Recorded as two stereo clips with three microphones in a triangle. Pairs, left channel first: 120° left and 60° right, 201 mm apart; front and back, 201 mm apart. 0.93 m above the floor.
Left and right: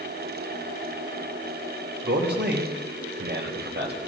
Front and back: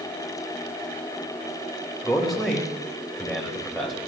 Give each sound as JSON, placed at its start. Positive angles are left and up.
{"t": 2.0, "sound": "a man speaking", "azimuth_deg": -90, "distance_m": 3.5}